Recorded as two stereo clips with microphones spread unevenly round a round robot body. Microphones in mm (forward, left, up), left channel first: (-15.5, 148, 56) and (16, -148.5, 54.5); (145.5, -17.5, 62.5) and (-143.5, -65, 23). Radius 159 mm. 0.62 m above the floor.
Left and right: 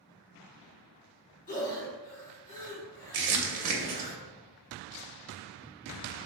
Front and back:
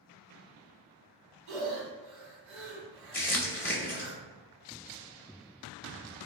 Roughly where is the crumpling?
Right.